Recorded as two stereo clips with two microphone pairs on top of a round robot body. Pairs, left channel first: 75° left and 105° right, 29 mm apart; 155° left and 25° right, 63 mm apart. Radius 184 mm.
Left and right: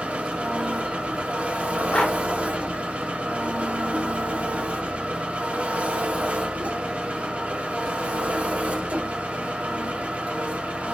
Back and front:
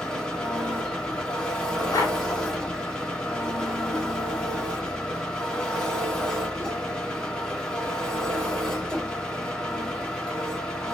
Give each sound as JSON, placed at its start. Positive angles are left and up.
{"t": 0.0, "sound": "an engine running", "azimuth_deg": -125, "distance_m": 1.3}
{"t": 1.9, "sound": "a dog barking", "azimuth_deg": 125, "distance_m": 1.1}